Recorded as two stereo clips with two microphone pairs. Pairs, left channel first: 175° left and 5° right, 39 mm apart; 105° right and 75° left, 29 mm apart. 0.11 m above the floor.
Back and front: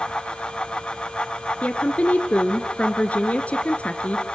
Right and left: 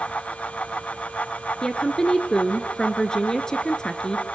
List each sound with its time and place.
1.6 s a woman speaking: 155° right, 1.4 m